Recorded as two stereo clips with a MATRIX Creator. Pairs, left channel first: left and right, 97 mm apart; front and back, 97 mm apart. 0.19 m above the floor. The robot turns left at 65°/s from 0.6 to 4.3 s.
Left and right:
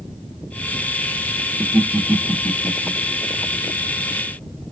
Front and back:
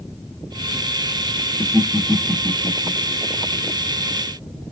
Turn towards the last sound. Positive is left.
turn(degrees=55)